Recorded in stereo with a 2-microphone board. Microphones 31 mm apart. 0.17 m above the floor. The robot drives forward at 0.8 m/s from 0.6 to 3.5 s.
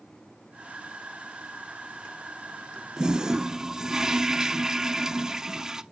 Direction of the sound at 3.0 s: 25° right (ahead or behind).